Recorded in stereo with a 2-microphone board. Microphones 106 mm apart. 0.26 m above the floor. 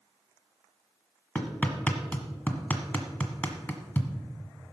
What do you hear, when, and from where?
1.4 s hammering: 15° left (ahead or behind), 1.4 m